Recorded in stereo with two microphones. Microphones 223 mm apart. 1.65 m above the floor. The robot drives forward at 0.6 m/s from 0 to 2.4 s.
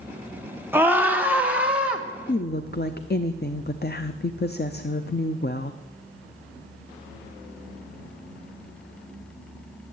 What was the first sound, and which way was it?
A scream, 10° right (ahead or behind).